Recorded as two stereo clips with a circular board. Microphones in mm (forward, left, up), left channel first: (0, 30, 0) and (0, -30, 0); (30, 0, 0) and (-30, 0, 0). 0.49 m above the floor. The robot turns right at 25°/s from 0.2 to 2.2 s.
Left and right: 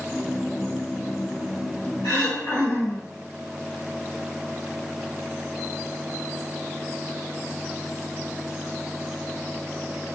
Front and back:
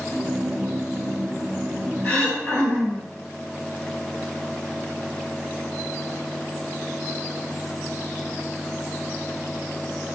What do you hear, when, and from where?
2.0 s throat clearing: 60° left, 1.9 m